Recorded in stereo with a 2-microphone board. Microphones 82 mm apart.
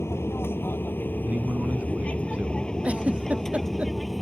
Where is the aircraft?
30° left (ahead or behind); by 4.2 s centre (ahead or behind).